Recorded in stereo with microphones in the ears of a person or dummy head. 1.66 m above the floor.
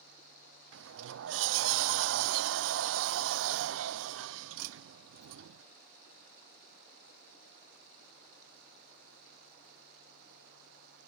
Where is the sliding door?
80° right.